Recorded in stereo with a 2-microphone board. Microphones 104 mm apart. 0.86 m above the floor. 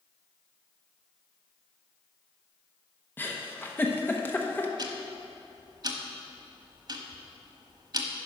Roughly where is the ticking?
Right.